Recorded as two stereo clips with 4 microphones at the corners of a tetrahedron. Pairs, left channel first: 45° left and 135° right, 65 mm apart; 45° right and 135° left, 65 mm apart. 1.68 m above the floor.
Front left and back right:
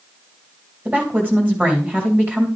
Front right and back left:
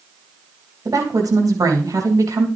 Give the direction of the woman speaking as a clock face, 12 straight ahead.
7 o'clock.